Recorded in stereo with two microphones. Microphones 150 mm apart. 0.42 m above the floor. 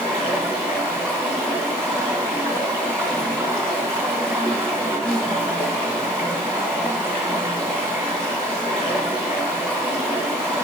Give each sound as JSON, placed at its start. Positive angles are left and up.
{"t": 0.0, "sound": "running water", "side_deg": 5, "distance_m": 2.5}